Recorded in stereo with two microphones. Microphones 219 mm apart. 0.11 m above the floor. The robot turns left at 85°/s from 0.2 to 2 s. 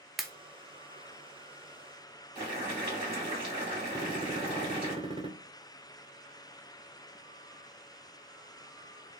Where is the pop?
Centre (ahead or behind), 0.5 m; by 0.3 s 5° left (ahead or behind), 0.5 m.